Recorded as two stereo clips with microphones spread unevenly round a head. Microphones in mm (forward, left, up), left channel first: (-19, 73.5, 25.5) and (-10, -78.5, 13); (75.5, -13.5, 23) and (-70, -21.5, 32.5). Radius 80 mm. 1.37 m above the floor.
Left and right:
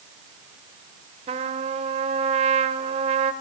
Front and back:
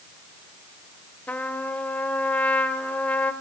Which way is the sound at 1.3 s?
80° right.